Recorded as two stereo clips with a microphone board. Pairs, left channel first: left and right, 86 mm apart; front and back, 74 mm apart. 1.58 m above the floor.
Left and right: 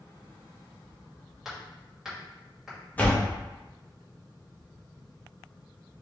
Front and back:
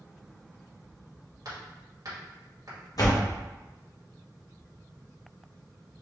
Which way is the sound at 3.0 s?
20° left.